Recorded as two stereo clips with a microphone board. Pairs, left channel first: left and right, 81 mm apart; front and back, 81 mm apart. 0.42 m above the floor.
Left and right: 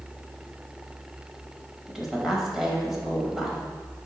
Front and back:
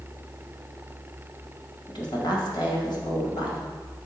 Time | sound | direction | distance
1.9 | a woman speaking | 5° right | 1.7 m